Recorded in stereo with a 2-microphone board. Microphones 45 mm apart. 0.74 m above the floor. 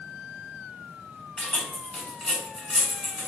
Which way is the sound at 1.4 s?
15° left (ahead or behind).